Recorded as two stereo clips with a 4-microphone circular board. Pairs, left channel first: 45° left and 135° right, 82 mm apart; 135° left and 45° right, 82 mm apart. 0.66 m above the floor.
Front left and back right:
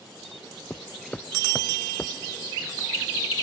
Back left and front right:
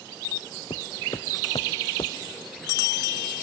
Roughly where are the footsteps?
Behind left.